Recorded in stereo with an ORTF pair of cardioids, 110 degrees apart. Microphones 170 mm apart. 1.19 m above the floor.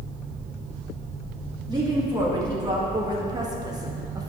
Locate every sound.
1.7 s a woman speaking: 25° right, 2.5 m; by 4.3 s 20° right, 1.0 m